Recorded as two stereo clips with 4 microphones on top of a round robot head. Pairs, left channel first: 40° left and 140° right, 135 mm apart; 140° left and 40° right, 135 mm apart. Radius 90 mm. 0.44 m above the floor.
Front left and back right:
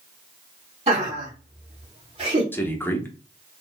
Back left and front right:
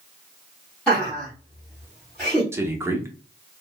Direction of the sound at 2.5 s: 10° right.